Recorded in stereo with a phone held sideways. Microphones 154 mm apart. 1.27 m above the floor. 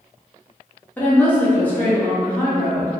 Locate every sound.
1.0 s a woman speaking: 10° left (ahead or behind), 0.7 m